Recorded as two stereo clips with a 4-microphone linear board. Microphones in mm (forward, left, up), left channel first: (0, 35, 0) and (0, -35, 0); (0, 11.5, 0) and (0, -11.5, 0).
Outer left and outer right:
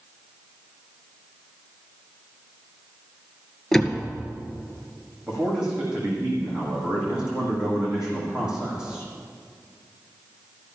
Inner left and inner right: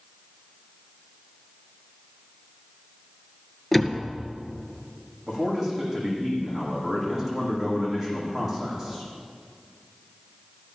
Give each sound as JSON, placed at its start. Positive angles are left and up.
{"t": 3.7, "sound": "a door slam", "side_deg": 5, "distance_m": 2.0}
{"t": 5.3, "sound": "a man speaking", "side_deg": -10, "distance_m": 8.5}